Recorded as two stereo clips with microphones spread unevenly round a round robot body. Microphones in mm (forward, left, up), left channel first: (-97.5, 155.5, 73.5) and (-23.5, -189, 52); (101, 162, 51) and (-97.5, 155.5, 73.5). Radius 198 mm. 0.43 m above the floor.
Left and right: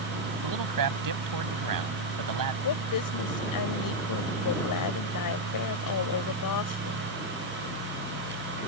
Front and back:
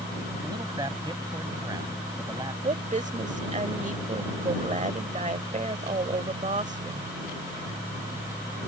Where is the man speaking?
100° right.